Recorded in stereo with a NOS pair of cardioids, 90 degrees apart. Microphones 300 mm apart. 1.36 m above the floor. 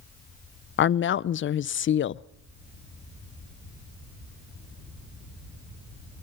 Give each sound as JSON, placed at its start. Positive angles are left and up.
{"t": 0.8, "sound": "a woman speaking", "azimuth_deg": 40, "distance_m": 0.5}